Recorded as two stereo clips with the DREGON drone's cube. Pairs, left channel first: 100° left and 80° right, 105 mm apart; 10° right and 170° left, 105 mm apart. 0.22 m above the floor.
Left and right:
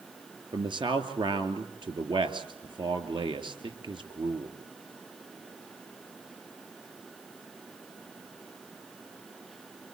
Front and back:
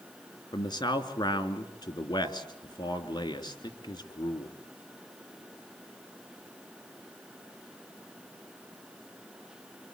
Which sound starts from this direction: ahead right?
A man speaking, at 0.5 s.